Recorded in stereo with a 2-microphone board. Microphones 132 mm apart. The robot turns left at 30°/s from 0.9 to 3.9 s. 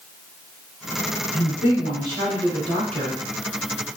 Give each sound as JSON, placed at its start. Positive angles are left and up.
{"t": 1.3, "sound": "a woman speaking", "azimuth_deg": 60, "distance_m": 1.9}